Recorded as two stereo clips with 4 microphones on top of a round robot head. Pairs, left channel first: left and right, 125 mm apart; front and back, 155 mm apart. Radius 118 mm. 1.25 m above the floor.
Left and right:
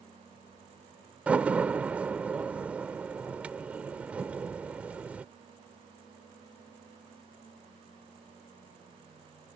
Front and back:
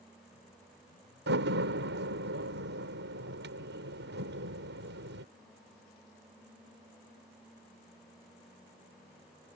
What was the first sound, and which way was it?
A door slam, 170° right.